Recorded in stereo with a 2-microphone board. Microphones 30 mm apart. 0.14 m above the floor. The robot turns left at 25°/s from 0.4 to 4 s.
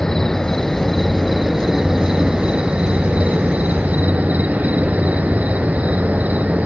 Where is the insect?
15° left, 0.7 m; by 6.7 s 75° right, 0.7 m.